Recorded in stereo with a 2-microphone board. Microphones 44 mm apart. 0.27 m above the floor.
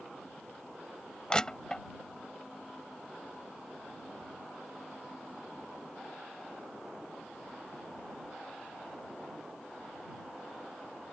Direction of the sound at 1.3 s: 15° left (ahead or behind).